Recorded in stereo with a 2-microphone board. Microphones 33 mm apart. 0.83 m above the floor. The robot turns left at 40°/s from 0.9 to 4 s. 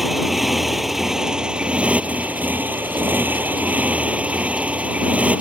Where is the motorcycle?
10° right; by 5.4 s 135° right.